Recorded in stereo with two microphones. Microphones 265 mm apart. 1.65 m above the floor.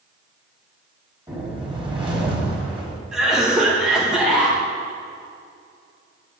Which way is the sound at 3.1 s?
Centre (ahead or behind).